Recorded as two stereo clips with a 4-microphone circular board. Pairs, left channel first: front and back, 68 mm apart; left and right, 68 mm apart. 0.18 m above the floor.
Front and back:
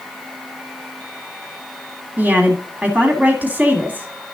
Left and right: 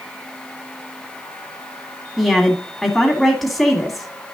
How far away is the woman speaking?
About 1.6 m.